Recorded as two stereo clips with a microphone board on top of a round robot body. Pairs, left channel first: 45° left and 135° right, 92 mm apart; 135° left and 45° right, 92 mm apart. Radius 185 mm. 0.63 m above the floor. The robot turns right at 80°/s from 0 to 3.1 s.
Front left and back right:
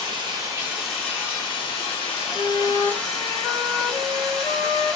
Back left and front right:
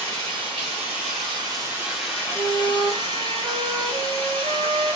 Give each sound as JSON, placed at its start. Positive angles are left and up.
{"t": 0.0, "sound": "running water", "azimuth_deg": -120, "distance_m": 0.8}
{"t": 2.3, "sound": "a flute", "azimuth_deg": -90, "distance_m": 1.7}